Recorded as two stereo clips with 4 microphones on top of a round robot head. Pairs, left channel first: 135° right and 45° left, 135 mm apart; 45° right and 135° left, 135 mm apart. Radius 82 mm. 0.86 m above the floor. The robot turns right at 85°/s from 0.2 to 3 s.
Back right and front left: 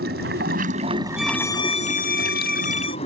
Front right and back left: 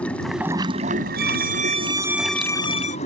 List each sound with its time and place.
0.0 s running water: 35° left; by 3.1 s 85° right
1.2 s a violin: 130° left; by 3.0 s 75° right